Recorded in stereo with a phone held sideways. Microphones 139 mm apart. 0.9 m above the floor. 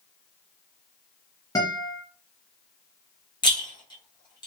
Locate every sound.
1.6 s a guitar: 25° left (ahead or behind), 0.9 m
3.4 s a rattle: 35° left (ahead or behind), 0.8 m